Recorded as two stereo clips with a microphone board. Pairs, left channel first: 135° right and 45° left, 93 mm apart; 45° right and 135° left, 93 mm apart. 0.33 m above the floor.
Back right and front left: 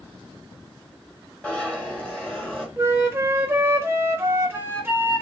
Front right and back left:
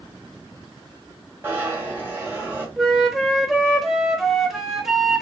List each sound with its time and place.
1.4 s a zipper: 165° left, 1.1 m
2.8 s a flute: 50° left, 0.6 m